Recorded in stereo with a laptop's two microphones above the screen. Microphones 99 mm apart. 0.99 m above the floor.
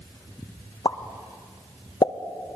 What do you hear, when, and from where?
0.8 s a pop: 50° left (ahead or behind), 0.5 m